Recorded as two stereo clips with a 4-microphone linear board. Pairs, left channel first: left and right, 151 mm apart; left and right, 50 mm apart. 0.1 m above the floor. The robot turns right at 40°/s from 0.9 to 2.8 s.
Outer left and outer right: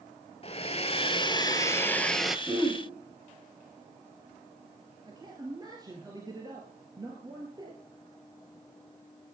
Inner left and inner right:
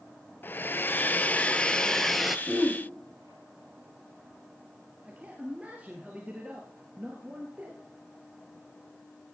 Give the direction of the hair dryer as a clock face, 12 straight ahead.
8 o'clock.